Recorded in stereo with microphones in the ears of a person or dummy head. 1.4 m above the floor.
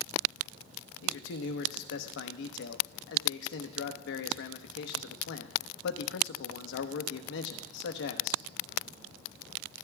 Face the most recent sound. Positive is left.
turn(degrees=60)  # may be behind; listen again after turning